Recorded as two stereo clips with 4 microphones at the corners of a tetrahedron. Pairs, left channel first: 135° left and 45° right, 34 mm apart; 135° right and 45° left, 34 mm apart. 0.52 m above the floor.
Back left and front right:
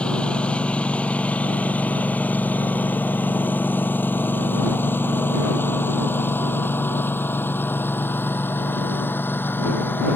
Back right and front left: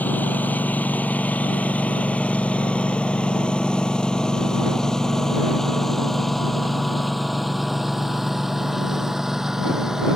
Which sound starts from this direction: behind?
A lawn mower, at 0.0 s.